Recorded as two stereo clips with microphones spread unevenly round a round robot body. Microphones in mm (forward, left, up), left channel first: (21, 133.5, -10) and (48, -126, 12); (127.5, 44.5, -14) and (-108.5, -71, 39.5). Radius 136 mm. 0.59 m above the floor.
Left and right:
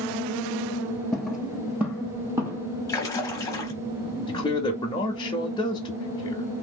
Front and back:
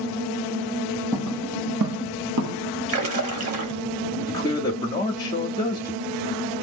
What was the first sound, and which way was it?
Footsteps, 165° right.